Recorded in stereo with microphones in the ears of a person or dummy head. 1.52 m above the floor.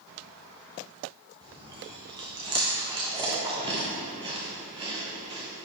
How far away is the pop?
No pop in this recording.